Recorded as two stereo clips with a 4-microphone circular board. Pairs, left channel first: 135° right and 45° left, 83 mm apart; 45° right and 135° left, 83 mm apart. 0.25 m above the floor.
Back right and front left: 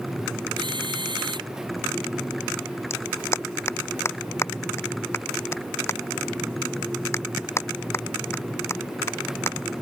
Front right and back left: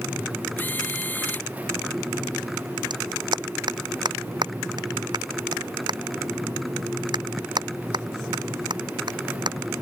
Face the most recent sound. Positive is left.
turn(degrees=165)